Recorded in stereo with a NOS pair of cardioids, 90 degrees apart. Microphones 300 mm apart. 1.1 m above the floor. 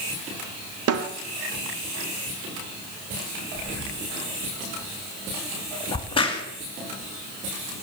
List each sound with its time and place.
0.9 s a snare drum: 60° right, 1.7 m
3.5 s breathing: 40° right, 3.5 m
5.9 s a crack: 20° left, 3 m